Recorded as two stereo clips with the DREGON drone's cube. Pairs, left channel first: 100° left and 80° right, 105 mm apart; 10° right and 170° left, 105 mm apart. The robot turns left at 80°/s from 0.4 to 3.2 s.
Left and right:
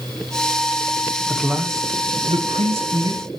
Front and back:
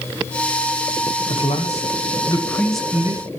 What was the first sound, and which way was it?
A man speaking, 20° left.